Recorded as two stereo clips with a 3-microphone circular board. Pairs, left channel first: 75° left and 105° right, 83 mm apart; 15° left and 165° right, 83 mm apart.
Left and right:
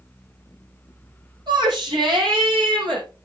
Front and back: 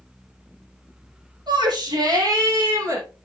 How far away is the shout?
About 8.5 m.